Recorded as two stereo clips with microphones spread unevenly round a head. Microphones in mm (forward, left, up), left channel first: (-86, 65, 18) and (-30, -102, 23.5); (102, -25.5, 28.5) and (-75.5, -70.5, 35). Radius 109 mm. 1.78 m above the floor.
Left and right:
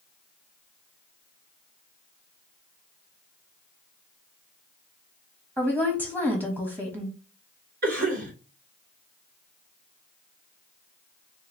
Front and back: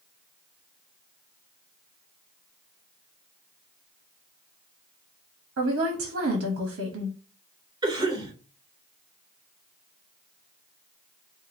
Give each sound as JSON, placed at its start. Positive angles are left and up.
{"t": 5.6, "sound": "a woman speaking", "azimuth_deg": -150, "distance_m": 1.2}
{"t": 7.8, "sound": "a cough", "azimuth_deg": -100, "distance_m": 3.5}